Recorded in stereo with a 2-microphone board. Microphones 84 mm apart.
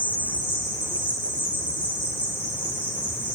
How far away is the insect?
About 1.1 m.